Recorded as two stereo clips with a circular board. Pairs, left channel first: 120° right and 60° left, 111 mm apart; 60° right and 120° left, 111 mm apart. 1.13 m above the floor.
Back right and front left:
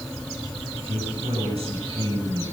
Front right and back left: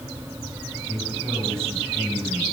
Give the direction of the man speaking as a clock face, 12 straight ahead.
11 o'clock.